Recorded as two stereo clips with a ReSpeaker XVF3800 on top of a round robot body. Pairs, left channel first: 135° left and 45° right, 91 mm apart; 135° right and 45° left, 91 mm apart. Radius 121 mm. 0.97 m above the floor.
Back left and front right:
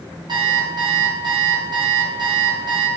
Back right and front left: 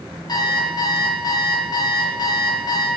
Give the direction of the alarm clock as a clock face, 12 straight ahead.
3 o'clock.